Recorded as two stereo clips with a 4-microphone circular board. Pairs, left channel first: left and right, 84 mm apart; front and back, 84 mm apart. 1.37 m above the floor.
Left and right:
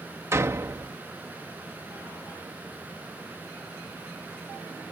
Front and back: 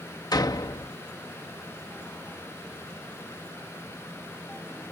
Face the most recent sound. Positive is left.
turn(degrees=-35)